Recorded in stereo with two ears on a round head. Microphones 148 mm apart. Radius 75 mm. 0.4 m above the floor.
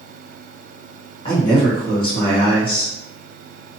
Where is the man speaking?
30° left (ahead or behind), 1.3 m.